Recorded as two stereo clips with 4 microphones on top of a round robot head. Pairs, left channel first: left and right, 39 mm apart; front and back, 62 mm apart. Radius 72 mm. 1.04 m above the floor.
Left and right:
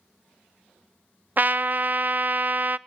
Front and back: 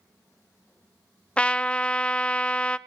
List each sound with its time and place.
1.4 s a trumpet: 70° right, 0.6 m